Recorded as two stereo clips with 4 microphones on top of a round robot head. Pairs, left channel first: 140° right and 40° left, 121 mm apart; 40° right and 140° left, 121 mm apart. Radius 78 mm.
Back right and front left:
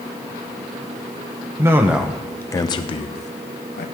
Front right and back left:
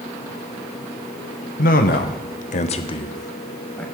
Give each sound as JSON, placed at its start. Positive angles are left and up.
{"t": 1.6, "sound": "a man speaking", "azimuth_deg": -30, "distance_m": 0.9}